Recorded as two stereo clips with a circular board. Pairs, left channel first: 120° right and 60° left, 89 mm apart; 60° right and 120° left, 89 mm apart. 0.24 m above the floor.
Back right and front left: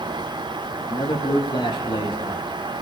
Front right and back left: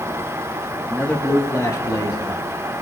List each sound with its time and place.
0.9 s a man speaking: 135° right, 3 m; by 2.4 s 95° right, 3.5 m